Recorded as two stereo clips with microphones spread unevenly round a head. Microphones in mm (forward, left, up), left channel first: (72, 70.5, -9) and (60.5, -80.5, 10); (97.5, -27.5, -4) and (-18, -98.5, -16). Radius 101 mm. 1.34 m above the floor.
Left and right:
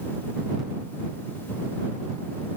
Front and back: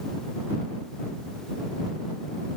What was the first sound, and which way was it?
Only background noise.